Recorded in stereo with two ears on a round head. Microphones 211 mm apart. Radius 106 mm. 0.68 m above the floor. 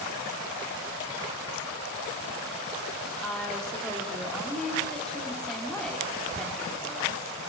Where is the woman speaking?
5° left (ahead or behind), 1.8 m.